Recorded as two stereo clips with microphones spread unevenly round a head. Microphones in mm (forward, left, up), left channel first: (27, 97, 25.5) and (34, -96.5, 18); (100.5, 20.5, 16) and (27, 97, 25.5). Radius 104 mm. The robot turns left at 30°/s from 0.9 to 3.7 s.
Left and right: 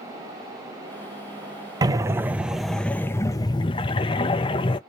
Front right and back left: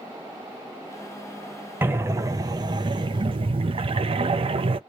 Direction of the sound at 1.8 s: 150° right.